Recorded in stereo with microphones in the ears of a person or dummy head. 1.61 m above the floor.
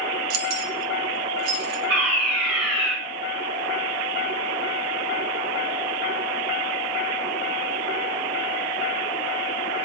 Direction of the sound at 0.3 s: 60° right (ahead or behind).